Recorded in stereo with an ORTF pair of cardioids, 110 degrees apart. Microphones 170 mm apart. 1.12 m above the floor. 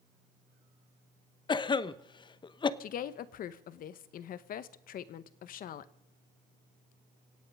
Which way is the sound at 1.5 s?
30° left.